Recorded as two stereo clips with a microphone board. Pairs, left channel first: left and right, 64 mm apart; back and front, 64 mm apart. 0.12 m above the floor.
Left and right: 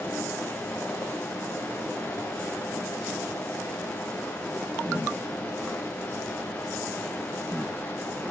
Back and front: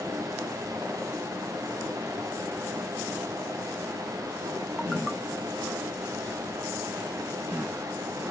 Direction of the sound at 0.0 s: 25° left.